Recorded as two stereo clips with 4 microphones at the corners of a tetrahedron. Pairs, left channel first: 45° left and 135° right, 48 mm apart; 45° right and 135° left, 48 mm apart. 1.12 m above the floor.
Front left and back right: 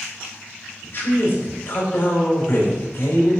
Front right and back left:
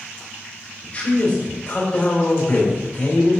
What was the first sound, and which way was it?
A man speaking, straight ahead.